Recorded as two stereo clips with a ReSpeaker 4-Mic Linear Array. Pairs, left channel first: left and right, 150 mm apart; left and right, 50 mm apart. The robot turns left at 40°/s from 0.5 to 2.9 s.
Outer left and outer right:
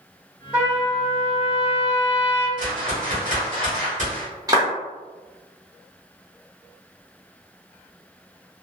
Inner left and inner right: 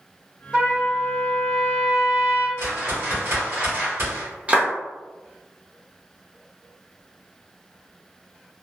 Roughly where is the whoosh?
Right.